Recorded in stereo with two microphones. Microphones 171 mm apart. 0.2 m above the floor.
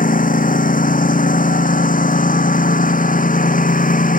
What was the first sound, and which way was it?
A lawn mower, 55° left (ahead or behind).